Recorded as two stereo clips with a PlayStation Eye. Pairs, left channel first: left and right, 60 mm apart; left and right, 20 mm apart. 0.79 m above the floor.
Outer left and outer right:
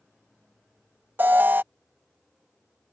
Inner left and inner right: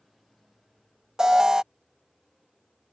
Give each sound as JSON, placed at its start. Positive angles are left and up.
{"t": 1.2, "sound": "an alarm", "side_deg": -35}